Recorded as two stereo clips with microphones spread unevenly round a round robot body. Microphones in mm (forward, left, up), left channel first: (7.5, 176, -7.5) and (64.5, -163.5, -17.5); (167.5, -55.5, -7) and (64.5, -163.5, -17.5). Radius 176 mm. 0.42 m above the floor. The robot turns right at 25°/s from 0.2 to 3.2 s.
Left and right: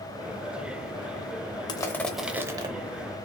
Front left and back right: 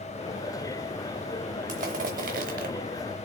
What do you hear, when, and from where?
1.7 s crushing: straight behind, 0.6 m; by 2.7 s 155° right, 0.6 m